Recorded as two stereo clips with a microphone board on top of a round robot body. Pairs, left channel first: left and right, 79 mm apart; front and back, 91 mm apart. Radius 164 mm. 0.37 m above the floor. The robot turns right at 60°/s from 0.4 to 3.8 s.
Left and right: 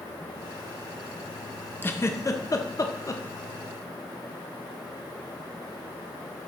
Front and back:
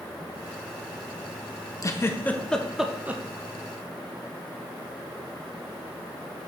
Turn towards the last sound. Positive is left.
turn(degrees=155)